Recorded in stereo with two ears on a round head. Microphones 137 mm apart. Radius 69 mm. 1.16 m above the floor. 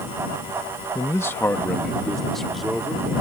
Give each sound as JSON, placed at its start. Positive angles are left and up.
{"t": 0.9, "sound": "a man speaking", "side_deg": 25}